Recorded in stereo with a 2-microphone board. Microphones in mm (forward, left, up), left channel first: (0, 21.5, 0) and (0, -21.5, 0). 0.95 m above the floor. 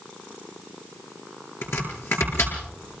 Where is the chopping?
75° left (ahead or behind), 8 m.